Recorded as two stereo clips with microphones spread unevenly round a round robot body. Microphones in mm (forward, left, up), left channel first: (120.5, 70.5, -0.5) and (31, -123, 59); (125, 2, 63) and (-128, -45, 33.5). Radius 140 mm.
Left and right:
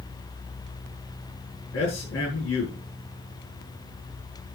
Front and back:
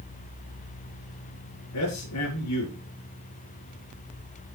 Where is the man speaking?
45° left, 4.5 m.